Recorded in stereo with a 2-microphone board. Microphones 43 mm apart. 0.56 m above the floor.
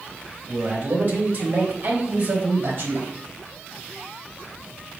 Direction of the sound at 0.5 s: 40° right (ahead or behind).